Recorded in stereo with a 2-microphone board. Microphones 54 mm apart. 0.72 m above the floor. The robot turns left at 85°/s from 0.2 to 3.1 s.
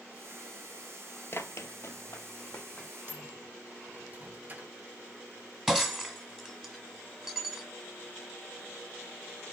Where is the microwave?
40° right (ahead or behind), 1.8 m; by 4.8 s 35° right (ahead or behind), 1.8 m.